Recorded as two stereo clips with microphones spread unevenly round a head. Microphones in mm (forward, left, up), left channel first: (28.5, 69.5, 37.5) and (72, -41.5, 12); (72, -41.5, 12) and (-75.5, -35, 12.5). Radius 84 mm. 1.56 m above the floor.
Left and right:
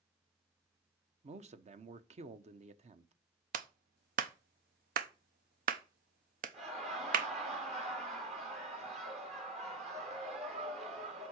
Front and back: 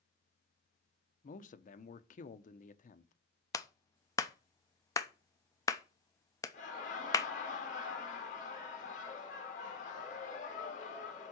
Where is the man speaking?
35° right, 0.9 m.